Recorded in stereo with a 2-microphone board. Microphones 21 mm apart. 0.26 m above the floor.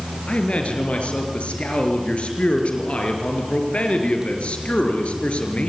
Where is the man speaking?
75° left (ahead or behind), 4.5 m.